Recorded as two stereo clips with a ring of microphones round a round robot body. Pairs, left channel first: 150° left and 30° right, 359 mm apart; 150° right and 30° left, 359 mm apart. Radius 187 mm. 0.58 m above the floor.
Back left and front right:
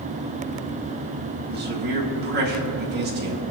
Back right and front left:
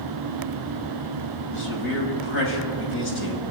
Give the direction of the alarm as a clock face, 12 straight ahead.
I don't hear an alarm.